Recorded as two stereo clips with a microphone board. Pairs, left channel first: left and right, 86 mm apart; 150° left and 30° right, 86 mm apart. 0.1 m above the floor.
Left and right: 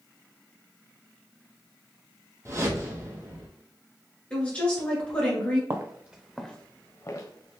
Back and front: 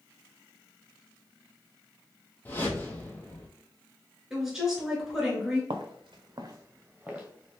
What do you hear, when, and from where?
2.5 s a whoosh: 145° right, 0.6 m
4.3 s a woman speaking: 45° left, 1.2 m
5.7 s footsteps: 35° right, 0.6 m; by 7.6 s 55° left, 0.9 m